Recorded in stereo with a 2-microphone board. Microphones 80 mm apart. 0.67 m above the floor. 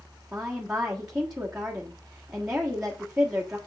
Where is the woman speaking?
10° right (ahead or behind), 1.3 m.